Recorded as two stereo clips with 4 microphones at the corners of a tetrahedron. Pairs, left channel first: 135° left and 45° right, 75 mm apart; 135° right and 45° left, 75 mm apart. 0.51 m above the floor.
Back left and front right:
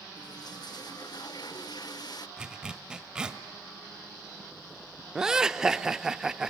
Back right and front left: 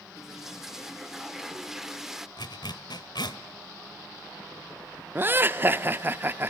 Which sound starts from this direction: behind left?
A toilet flushing, at 0.2 s.